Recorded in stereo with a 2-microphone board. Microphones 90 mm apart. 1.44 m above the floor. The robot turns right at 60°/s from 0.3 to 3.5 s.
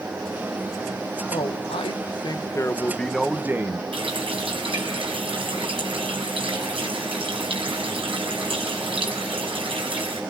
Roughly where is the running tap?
Right.